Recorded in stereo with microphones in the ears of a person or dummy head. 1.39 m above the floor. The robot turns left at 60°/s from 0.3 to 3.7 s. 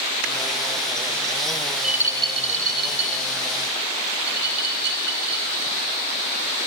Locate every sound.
1.7 s a rattle: 5° left (ahead or behind), 3.5 m; by 5.7 s 60° right (ahead or behind), 3.5 m